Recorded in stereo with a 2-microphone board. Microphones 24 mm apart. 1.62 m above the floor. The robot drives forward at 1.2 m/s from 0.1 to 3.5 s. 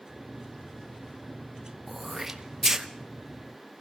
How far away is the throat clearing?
About 1.6 m.